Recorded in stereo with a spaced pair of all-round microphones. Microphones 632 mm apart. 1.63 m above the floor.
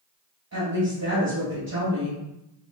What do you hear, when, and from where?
0.5 s a woman speaking: 25° right (ahead or behind), 1.3 m